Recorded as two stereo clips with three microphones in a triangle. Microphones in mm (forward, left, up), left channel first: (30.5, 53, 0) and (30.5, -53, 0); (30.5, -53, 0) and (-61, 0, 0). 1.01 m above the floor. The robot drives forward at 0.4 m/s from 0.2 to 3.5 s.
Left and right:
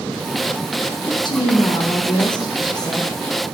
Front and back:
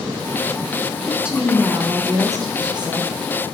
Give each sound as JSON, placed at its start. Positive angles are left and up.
{"t": 1.1, "sound": "a woman speaking", "azimuth_deg": 65, "distance_m": 0.9}